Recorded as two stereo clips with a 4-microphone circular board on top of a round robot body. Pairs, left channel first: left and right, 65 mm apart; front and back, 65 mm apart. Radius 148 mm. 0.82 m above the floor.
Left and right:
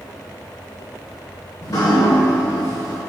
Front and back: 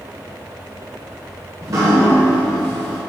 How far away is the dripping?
About 0.7 m.